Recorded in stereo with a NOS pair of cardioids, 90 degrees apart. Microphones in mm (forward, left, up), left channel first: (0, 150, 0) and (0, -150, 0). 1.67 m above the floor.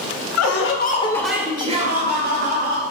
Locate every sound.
0.4 s laughter: 60° left, 0.8 m; by 2.8 s 40° right, 1.8 m